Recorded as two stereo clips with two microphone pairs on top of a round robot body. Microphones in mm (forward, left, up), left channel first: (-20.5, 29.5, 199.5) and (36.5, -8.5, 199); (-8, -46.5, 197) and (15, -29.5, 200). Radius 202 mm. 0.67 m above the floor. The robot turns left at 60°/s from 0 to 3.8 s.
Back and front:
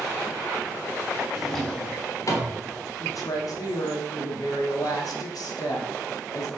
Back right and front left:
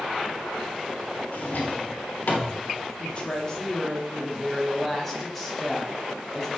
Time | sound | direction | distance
1.3 | a drawer | 110° right | 1.3 m
3.0 | a woman speaking | 175° right | 2.0 m